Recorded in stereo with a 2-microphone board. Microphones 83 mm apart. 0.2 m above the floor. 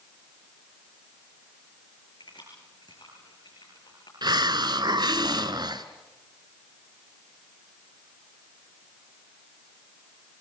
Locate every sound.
2.2 s keys jangling: 65° left (ahead or behind), 9.5 m
4.2 s a hiss: 65° right (ahead or behind), 1.0 m